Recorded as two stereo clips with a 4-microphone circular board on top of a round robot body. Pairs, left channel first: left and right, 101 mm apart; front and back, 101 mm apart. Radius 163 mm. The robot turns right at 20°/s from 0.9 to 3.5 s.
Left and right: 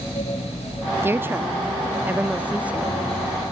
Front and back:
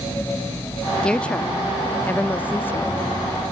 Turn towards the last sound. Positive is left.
turn(degrees=-20)